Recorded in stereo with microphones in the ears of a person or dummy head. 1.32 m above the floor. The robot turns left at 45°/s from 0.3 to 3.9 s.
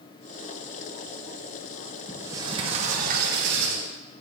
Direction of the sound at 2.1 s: 10° right.